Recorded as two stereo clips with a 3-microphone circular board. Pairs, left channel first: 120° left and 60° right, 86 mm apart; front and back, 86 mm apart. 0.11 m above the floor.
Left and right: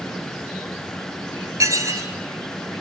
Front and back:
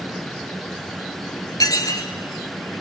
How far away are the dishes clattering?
About 1.4 m.